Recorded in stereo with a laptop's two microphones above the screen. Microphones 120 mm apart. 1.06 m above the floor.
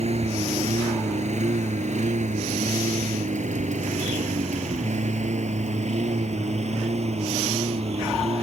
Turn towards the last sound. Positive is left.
turn(degrees=-60)  # may be behind; listen again after turning